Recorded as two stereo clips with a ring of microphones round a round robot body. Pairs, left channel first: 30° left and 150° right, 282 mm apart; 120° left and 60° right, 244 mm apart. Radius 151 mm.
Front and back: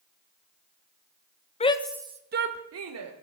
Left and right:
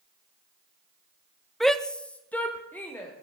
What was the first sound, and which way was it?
A shout, 35° left.